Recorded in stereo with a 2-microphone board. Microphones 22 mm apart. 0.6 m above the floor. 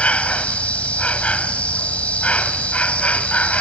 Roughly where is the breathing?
I don't hear breathing.